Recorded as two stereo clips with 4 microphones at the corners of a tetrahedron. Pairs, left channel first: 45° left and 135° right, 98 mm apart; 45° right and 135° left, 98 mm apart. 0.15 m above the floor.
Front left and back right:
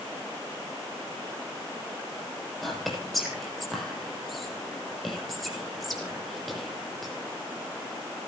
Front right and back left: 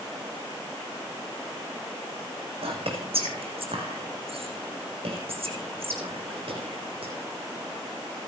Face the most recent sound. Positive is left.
turn(degrees=135)